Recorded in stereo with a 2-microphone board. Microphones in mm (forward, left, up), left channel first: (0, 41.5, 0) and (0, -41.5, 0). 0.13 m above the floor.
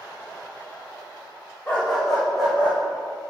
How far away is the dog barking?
About 3.5 m.